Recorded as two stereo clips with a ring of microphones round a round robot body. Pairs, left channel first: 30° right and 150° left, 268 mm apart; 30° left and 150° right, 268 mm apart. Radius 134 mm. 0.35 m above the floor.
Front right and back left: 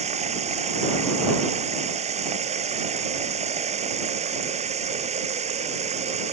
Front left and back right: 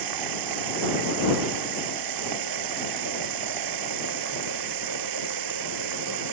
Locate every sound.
0.0 s running water: 145° right